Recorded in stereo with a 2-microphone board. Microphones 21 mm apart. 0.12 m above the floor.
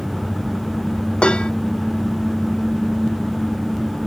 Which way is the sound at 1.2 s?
60° left (ahead or behind).